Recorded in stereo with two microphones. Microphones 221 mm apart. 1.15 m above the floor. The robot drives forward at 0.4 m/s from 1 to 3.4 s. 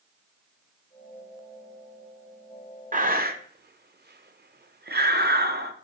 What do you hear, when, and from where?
2.9 s breathing: 35° right (ahead or behind), 0.8 m; by 5.7 s 45° right (ahead or behind), 0.6 m